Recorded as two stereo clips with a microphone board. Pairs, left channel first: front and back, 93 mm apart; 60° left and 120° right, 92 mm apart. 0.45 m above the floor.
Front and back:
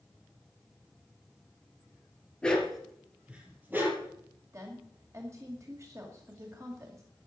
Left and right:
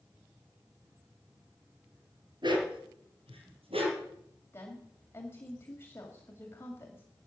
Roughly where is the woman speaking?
Behind left.